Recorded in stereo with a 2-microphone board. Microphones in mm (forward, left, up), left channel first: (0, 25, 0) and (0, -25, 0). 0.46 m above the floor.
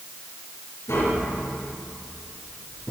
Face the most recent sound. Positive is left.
turn(degrees=70)  # may be behind; listen again after turning